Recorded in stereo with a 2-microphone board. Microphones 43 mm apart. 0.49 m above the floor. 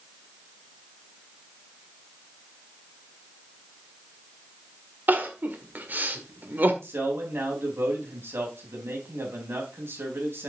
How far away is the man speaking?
About 4 m.